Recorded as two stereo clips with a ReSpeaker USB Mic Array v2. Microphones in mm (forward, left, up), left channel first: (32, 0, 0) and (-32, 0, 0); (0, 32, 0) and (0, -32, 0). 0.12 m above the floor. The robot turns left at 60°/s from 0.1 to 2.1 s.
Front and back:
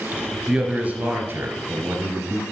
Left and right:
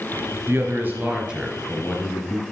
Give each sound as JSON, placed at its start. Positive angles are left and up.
{"t": 0.5, "sound": "a man speaking", "azimuth_deg": -105, "distance_m": 1.6}